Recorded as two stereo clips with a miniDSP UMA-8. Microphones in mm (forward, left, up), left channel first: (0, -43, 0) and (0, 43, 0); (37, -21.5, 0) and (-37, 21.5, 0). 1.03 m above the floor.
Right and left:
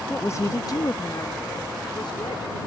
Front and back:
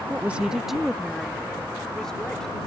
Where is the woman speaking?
155° right; by 2.6 s 110° right.